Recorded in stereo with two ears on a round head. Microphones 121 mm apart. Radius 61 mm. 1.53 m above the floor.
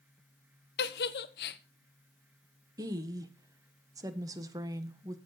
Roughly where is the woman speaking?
Right.